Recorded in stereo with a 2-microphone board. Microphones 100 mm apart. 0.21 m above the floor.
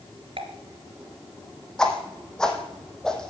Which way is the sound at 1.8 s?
5° left (ahead or behind).